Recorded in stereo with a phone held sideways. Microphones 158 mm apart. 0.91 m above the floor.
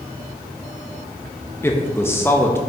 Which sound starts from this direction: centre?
A man speaking, at 1.6 s.